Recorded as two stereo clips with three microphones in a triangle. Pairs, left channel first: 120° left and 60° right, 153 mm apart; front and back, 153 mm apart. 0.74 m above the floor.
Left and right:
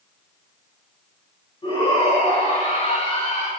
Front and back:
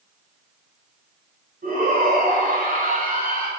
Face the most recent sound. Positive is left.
turn(degrees=160)